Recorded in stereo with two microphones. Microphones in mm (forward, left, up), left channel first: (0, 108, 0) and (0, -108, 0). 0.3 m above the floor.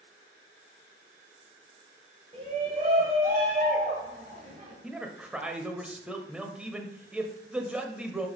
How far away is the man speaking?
About 0.9 m.